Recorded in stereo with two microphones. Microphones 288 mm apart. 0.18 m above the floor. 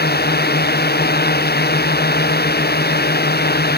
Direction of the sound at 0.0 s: 35° left (ahead or behind).